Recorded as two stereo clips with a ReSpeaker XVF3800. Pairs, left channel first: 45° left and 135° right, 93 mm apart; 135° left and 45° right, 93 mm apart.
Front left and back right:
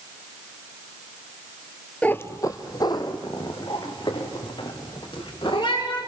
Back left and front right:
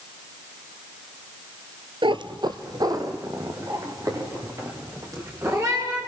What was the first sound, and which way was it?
A cat meowing, 30° right.